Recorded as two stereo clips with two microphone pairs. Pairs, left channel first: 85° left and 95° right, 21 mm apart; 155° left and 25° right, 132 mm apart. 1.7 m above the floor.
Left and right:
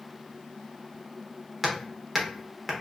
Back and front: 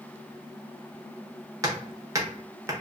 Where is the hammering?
20° right, 1.0 m.